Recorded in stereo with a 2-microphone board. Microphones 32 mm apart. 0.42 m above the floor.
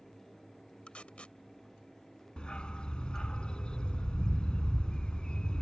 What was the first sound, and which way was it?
Tape being pulled, 40° left (ahead or behind).